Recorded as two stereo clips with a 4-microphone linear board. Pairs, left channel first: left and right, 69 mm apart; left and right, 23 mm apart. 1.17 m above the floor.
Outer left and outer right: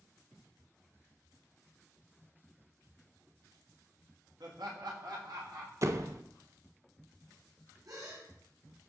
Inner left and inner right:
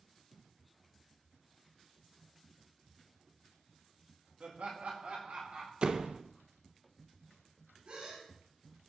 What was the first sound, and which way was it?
Laughter, 80° right.